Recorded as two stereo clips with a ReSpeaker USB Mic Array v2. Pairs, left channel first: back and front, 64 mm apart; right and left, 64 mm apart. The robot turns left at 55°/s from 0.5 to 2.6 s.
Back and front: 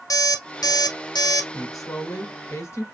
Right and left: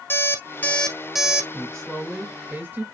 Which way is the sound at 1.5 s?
160° right.